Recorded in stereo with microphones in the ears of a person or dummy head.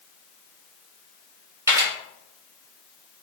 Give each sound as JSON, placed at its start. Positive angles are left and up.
{"t": 1.7, "sound": "a camera shutter", "side_deg": -15, "distance_m": 0.6}